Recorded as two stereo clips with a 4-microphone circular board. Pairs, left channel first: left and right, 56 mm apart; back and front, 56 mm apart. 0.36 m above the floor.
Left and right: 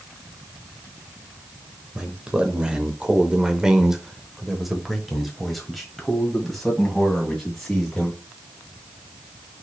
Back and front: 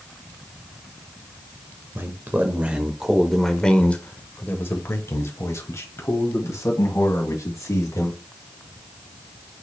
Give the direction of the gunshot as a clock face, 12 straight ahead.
I don't hear a gunshot.